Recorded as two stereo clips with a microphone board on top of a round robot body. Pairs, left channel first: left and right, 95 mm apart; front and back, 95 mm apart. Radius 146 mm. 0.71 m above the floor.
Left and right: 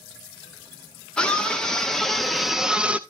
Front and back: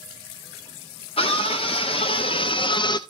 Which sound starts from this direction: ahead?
A scream, at 1.2 s.